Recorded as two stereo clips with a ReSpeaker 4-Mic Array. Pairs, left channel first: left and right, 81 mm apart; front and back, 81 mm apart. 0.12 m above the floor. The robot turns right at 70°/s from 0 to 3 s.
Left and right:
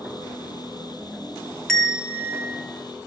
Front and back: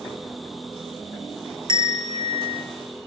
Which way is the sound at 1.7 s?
175° left.